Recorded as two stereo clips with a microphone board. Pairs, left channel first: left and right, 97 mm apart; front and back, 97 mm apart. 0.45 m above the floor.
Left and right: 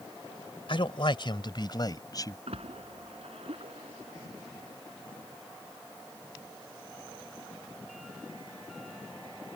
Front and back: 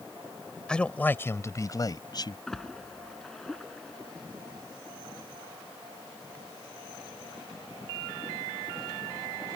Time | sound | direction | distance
0.7 | a man speaking | 80° left | ?
2.5 | a splash | 85° right | ?